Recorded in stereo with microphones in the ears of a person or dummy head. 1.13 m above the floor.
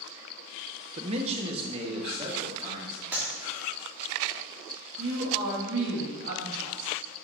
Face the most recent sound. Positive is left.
turn(degrees=-65)  # may be behind; listen again after turning